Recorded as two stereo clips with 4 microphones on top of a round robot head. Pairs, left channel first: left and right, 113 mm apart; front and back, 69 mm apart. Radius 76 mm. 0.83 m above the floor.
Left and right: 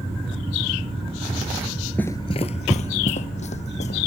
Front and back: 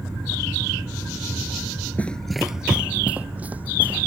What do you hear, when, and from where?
2.0 s running footsteps: 20° left; by 4.1 s 110° left